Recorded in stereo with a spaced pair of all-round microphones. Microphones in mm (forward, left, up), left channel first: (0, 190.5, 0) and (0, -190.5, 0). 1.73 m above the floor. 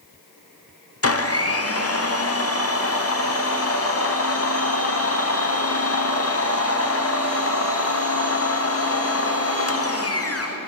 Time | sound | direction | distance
1.0 | a blender | 40° left (ahead or behind) | 0.7 m